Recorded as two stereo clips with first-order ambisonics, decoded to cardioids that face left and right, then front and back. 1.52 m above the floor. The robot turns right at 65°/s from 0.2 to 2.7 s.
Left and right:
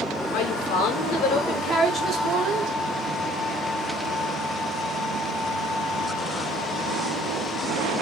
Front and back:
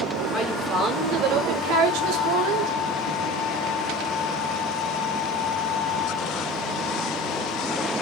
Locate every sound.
0.3 s a woman speaking: 75° left, 5.5 m; by 2.8 s 130° right, 5.5 m